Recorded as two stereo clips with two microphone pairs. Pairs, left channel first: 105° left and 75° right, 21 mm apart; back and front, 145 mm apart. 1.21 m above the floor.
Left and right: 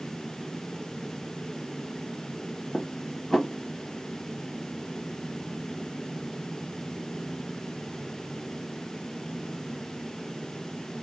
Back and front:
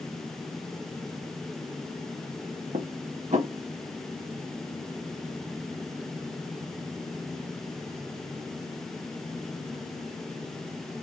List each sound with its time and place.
2.7 s dishes clattering: 35° left, 1.1 m